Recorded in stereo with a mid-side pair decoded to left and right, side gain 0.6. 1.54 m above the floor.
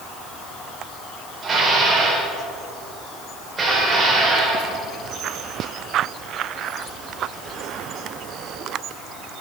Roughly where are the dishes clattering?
Ahead right.